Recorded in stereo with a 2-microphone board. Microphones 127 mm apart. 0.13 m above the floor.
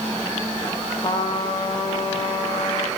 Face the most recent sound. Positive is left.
turn(degrees=35)  # may be behind; listen again after turning